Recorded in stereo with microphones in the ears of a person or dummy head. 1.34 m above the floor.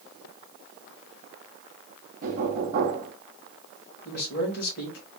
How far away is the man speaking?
About 2 m.